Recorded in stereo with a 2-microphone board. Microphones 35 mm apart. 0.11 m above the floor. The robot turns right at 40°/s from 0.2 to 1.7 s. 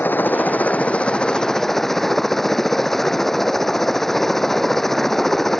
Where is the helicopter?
115° left; by 5.6 s 175° left.